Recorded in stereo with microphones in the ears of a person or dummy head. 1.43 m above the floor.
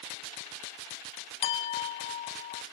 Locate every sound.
1.4 s a clink: 30° left (ahead or behind), 0.6 m